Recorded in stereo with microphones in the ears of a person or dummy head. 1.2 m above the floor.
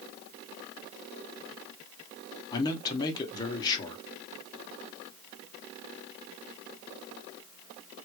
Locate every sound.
2.5 s a man speaking: 20° left (ahead or behind), 0.7 m